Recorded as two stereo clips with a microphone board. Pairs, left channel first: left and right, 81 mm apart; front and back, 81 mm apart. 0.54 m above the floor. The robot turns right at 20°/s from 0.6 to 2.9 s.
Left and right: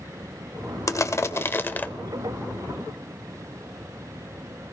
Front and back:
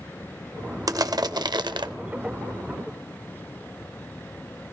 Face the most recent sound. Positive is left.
turn(degrees=180)